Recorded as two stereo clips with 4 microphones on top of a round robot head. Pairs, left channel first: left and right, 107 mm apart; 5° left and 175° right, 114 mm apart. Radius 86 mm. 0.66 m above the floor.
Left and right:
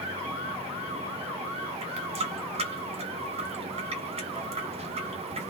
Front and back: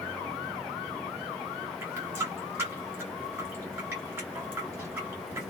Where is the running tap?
105° right, 0.9 m.